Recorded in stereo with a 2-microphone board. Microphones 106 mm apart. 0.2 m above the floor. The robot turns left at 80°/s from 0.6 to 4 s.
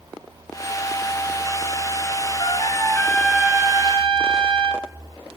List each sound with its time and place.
2.4 s a trumpet: 65° left, 0.8 m; by 4.9 s 60° right, 0.8 m